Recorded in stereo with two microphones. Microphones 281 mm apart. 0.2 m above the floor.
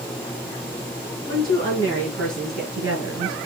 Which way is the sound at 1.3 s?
50° right (ahead or behind).